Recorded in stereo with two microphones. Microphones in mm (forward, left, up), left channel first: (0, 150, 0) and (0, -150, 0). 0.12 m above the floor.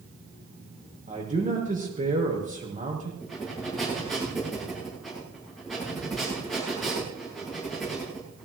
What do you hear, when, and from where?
1.1 s a man speaking: 25° right (ahead or behind), 6 m
3.2 s breathing: centre (ahead or behind), 8.5 m